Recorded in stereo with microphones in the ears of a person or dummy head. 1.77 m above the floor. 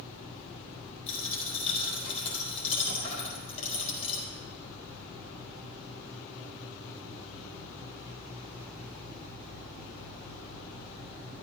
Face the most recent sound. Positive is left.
turn(degrees=40)  # may be behind; listen again after turning